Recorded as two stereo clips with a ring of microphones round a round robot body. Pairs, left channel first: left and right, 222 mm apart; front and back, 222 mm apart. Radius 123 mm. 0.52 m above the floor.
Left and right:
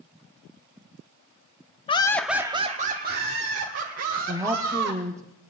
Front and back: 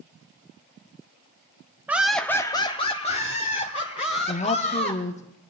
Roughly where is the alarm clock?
No alarm clock in this recording.